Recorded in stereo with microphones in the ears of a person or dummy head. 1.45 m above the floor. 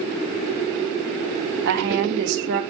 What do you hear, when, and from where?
1.6 s a woman speaking: 60° right (ahead or behind), 1.3 m